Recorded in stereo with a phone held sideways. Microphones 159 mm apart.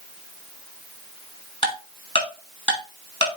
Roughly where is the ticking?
Left.